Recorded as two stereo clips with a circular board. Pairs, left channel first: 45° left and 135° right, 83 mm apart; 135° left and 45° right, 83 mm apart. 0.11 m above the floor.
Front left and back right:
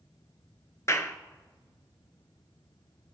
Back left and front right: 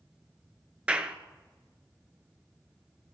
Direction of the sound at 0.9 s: 20° left.